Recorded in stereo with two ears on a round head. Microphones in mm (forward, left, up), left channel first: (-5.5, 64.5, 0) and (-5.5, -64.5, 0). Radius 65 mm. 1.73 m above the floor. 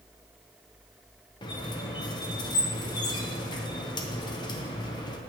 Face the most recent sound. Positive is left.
turn(degrees=30)  # may be behind; listen again after turning